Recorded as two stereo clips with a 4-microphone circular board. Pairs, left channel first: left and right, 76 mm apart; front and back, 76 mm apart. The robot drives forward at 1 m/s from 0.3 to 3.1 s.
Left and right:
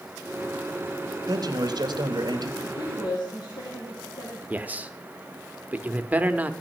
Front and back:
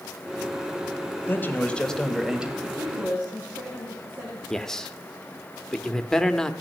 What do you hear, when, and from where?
1.3 s a man speaking: 60° right, 1.8 m; by 2.5 s 105° right, 1.7 m
2.6 s a woman speaking: 105° left, 3 m; by 4.4 s 115° left, 3 m
4.5 s a man speaking: 70° right, 0.9 m